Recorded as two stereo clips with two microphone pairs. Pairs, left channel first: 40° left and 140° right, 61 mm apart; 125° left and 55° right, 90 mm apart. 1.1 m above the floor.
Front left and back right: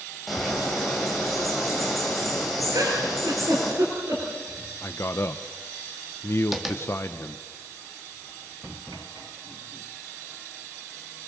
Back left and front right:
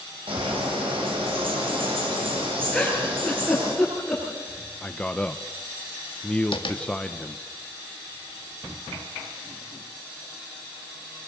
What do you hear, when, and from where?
0.3 s a bird: 50° right, 7.5 m
2.7 s a giggle: 150° right, 8.5 m
4.8 s a man speaking: 50° left, 0.9 m
6.5 s tapping: 130° left, 2.5 m